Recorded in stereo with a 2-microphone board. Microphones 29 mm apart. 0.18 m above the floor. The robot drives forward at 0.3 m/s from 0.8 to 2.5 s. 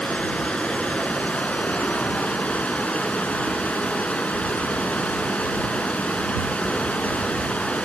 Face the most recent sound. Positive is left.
turn(degrees=55)  # may be behind; listen again after turning